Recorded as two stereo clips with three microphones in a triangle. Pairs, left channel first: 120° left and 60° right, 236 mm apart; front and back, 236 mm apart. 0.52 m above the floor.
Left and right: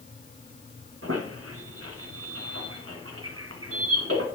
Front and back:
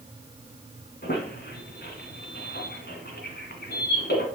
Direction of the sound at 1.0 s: 45° right.